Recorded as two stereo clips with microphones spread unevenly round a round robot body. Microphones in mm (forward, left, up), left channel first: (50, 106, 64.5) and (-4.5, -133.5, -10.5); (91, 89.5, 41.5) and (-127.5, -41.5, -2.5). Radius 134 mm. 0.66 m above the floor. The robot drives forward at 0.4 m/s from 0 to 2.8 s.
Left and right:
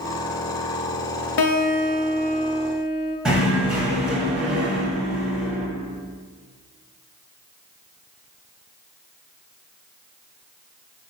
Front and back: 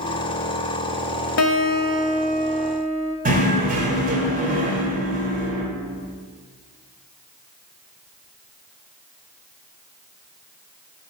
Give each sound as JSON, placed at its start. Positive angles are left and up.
{"t": 1.4, "sound": "a guitar", "azimuth_deg": 65, "distance_m": 0.5}
{"t": 3.2, "sound": "knocking", "azimuth_deg": -170, "distance_m": 0.8}